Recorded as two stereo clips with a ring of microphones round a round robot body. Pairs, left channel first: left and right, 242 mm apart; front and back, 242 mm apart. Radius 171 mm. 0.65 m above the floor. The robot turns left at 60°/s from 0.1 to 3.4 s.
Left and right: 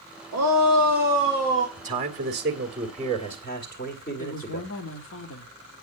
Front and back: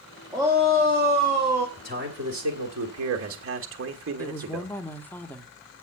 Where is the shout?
90° right, 1.6 m; by 1.7 s 170° right, 1.6 m.